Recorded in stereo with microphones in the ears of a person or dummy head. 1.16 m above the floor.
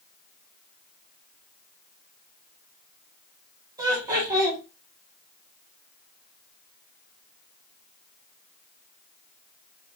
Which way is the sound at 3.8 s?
20° right (ahead or behind).